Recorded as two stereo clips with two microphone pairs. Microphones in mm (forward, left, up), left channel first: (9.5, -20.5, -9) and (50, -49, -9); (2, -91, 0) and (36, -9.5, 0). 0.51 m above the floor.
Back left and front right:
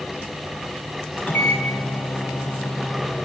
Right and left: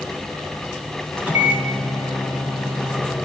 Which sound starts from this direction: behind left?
A microwave, at 1.2 s.